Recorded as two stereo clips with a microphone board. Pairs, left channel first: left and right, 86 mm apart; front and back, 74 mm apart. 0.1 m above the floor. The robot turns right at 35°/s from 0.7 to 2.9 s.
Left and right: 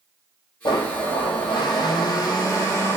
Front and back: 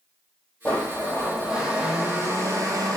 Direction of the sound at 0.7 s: 75° left.